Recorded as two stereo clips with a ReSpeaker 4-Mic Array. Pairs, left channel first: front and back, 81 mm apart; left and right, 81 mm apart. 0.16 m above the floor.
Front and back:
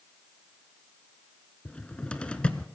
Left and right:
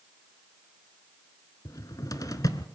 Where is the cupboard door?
75° left, 1.0 m.